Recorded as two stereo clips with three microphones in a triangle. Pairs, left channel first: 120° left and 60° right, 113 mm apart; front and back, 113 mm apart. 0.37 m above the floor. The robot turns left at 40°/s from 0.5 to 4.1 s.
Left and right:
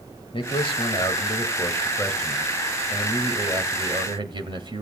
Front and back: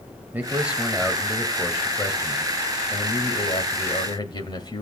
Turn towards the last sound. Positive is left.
turn(degrees=-35)